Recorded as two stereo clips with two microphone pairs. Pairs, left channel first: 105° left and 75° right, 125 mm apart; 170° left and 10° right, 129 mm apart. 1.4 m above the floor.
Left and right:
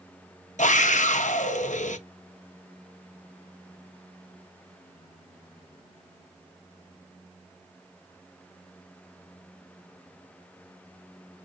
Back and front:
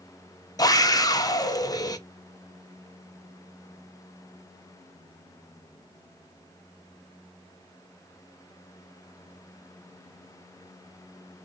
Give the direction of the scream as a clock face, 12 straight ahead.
8 o'clock.